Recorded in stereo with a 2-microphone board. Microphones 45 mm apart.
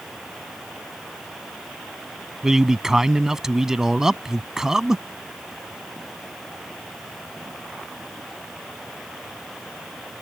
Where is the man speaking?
10° right (ahead or behind).